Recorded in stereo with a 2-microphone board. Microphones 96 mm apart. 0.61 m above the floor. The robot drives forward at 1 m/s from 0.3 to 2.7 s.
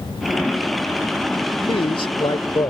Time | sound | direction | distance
1.7 | a man speaking | 65° left (ahead or behind) | ?